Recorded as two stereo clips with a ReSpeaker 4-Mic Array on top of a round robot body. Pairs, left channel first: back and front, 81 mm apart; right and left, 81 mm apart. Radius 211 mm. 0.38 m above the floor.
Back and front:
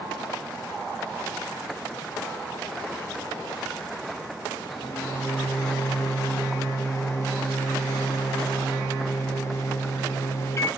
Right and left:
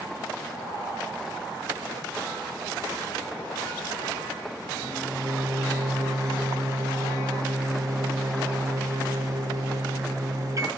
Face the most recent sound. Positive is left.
turn(degrees=130)